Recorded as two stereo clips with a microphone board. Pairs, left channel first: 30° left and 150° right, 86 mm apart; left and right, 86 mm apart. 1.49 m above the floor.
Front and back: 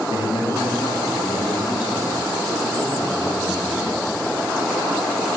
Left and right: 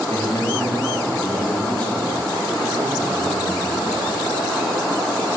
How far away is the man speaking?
About 2.5 m.